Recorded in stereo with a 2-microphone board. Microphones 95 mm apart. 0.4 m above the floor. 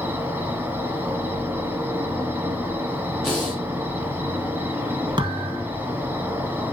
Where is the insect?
20° right (ahead or behind), 1.0 m.